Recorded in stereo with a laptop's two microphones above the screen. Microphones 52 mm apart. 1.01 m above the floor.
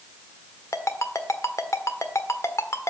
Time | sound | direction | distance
0.7 | a ringtone | 70° left (ahead or behind) | 1.3 m